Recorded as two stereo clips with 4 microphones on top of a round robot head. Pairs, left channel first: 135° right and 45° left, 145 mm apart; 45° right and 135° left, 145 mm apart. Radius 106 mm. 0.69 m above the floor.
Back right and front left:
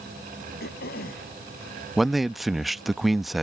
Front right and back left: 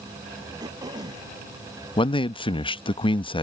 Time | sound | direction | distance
0.6 | throat clearing | 160° right | ?
2.0 | a man speaking | 45° right | ?